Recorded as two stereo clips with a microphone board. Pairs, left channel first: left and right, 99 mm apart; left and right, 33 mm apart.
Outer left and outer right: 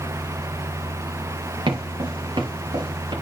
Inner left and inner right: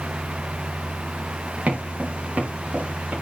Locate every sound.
1.7 s footsteps: 55° right (ahead or behind), 6 m